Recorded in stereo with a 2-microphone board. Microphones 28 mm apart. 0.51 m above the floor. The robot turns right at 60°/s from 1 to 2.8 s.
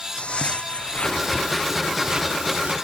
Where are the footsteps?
50° left (ahead or behind); by 2.7 s 60° right (ahead or behind).